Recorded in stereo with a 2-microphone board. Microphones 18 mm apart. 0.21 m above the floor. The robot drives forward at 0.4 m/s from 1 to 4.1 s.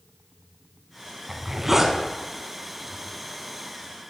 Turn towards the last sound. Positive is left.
turn(degrees=-10)  # may be behind; listen again after turning